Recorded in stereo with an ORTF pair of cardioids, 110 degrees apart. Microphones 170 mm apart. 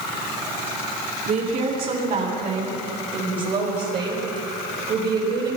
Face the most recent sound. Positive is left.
turn(degrees=-75)